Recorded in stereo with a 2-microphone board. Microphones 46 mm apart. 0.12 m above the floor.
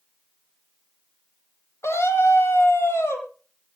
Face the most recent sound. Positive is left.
turn(degrees=70)  # may be behind; listen again after turning